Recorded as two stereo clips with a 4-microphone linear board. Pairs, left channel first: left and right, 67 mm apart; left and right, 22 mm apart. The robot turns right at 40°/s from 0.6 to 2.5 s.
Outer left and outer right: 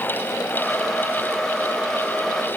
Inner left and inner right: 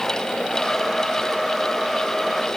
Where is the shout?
I don't hear a shout.